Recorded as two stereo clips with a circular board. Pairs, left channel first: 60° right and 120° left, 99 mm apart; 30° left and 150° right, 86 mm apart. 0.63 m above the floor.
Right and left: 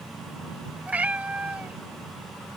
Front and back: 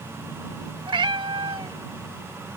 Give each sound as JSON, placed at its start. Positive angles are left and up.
{"t": 0.9, "sound": "a cat meowing", "azimuth_deg": -165}